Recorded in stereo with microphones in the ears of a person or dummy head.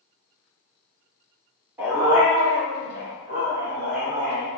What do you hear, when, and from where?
1.8 s a dog barking: 20° right (ahead or behind), 1.6 m; by 4.5 s 50° right (ahead or behind), 3.5 m